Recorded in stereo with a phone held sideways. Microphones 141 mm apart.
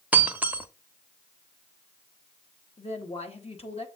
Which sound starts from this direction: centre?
Breaking glass, at 0.1 s.